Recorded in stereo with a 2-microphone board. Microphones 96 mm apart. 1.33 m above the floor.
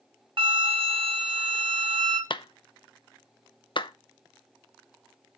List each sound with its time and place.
0.4 s a flute: 65° right (ahead or behind), 1.2 m
2.3 s a clap: 60° left (ahead or behind), 0.5 m